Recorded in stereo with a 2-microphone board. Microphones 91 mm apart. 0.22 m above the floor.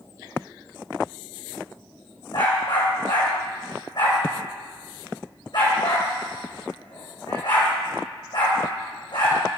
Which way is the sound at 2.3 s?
60° left (ahead or behind).